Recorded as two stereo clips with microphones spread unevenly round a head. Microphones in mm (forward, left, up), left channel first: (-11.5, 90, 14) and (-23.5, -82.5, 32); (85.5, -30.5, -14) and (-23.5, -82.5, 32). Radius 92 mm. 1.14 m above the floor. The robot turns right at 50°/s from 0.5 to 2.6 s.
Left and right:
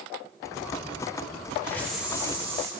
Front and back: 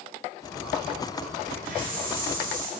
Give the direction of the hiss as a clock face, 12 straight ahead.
7 o'clock.